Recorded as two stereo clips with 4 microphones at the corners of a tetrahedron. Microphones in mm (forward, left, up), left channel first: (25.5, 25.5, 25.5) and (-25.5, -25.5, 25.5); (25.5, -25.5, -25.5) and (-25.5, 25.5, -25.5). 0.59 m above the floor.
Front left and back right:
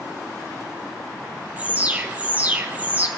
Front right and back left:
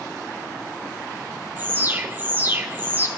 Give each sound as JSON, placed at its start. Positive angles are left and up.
{"t": 1.6, "sound": "an alarm", "azimuth_deg": 175, "distance_m": 1.4}